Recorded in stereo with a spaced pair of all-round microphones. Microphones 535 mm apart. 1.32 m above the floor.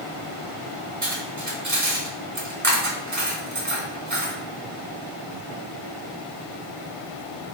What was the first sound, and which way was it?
Cutlery clinking, 35° right (ahead or behind).